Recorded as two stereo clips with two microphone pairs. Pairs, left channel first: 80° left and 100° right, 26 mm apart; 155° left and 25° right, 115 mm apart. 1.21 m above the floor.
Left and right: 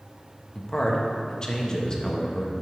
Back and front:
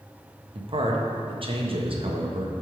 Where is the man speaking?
15° left, 1.0 m.